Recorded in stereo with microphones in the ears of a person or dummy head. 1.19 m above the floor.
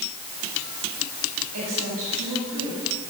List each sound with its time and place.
1.5 s a woman speaking: 75° right (ahead or behind), 9.5 m; by 2.8 s 70° right (ahead or behind), 9 m